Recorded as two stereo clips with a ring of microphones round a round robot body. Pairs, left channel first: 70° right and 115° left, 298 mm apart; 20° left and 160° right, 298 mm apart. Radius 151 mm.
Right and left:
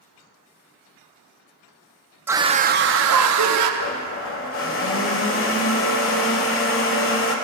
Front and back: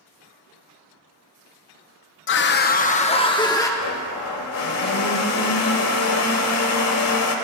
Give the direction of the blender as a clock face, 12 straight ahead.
1 o'clock.